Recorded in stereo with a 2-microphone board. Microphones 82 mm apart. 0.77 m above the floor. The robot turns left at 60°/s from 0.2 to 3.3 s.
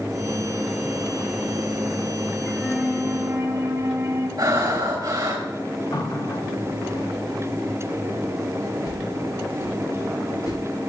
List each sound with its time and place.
2.5 s a flute: 15° left, 3 m; by 4.3 s 35° right, 3 m
4.4 s breathing: 50° right (ahead or behind), 2.5 m
5.9 s a running tap: 55° left (ahead or behind), 1.3 m
8.8 s a whoosh: 55° left (ahead or behind), 5.5 m